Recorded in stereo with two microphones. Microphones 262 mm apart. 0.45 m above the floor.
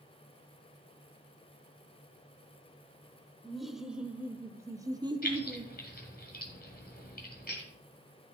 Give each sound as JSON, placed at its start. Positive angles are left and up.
{"t": 3.4, "sound": "laughter", "side_deg": 0, "distance_m": 1.1}
{"t": 5.2, "sound": "keys jangling", "side_deg": 35, "distance_m": 1.9}